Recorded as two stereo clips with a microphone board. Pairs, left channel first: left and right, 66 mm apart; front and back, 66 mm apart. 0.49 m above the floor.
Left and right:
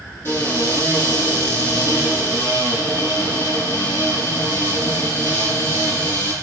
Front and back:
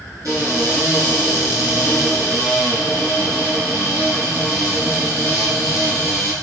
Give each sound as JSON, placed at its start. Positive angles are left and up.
{"t": 0.2, "sound": "a cupboard door", "azimuth_deg": 145, "distance_m": 5.0}